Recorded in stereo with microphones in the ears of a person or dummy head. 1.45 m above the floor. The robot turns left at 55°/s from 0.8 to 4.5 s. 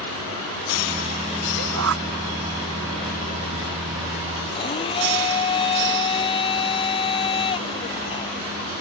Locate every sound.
1.6 s a shout: 85° right; by 2.0 s 70° right (ahead or behind)
4.5 s a blender: 25° left (ahead or behind)